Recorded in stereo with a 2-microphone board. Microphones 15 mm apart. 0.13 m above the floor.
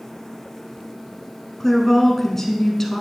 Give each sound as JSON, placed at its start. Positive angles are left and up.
{"t": 1.6, "sound": "a woman speaking", "side_deg": 20, "distance_m": 1.1}